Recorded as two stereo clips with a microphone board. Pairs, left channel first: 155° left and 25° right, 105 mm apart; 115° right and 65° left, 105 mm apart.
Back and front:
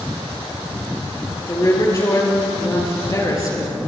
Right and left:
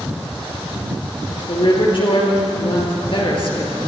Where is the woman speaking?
145° right, 5 m.